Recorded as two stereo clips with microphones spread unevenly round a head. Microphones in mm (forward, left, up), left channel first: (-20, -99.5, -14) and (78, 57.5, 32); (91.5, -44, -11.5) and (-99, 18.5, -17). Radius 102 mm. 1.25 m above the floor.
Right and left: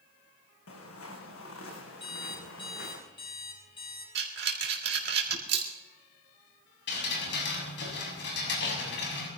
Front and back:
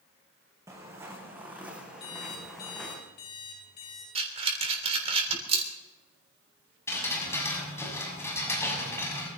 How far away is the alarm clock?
About 7 m.